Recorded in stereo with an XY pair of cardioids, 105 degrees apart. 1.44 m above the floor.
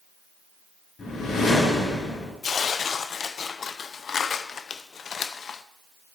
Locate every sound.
1.0 s a whoosh: 45° left, 4.5 m
2.4 s tearing paper: 50° left, 0.6 m